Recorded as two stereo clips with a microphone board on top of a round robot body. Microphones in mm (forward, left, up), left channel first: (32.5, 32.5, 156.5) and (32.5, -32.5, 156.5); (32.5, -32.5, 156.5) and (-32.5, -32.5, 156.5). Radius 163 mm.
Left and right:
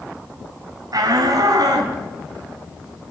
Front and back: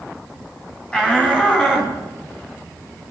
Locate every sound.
0.9 s a shout: 75° right, 4 m; by 3.1 s 65° right, 7 m